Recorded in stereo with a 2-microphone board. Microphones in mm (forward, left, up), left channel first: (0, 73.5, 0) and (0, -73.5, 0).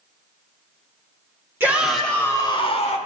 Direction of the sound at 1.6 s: 15° right (ahead or behind).